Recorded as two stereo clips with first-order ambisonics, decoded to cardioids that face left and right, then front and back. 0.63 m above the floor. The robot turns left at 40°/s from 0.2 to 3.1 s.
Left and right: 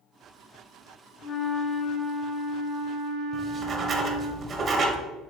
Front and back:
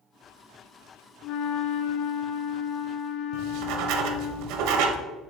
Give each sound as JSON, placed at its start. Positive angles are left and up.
{"t": 1.2, "sound": "a flute", "azimuth_deg": 35, "distance_m": 0.7}
{"t": 3.3, "sound": "writing", "azimuth_deg": -155, "distance_m": 0.8}